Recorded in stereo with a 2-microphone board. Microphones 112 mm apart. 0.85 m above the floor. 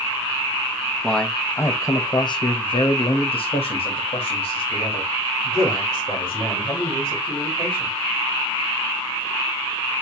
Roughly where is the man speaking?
Centre.